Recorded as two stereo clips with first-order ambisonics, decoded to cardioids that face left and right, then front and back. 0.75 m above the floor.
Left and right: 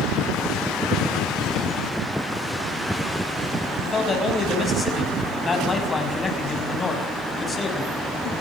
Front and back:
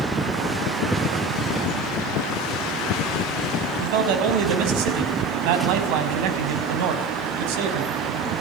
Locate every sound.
3.8 s a man speaking: 170° left, 6 m